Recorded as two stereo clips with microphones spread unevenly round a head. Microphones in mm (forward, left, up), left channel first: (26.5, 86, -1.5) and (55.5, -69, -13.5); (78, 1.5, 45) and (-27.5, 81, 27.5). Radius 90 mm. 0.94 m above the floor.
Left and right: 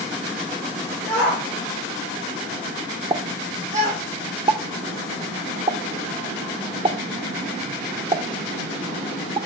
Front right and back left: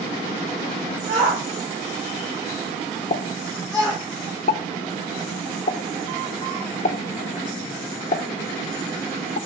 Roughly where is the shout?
Behind.